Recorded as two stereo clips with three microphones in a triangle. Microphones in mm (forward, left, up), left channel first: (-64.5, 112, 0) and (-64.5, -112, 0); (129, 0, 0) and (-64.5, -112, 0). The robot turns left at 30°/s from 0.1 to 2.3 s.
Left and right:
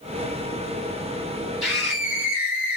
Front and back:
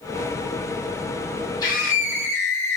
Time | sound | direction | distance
1.6 | a scream | straight ahead | 1.1 m